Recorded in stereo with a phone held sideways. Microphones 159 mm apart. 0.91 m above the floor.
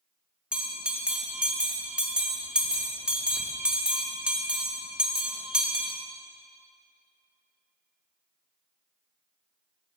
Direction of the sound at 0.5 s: 5° right (ahead or behind).